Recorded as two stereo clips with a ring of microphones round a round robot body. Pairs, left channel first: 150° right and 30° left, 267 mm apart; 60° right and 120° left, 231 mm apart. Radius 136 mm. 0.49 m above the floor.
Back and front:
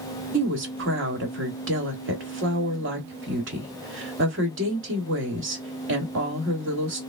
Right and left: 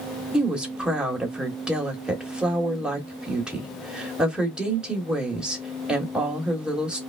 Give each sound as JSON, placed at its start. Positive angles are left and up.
{"t": 0.3, "sound": "a woman speaking", "azimuth_deg": 35, "distance_m": 1.4}